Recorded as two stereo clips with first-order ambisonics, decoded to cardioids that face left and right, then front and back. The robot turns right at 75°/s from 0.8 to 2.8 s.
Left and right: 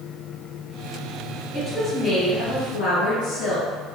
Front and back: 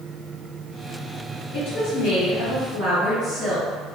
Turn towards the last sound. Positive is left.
turn(degrees=75)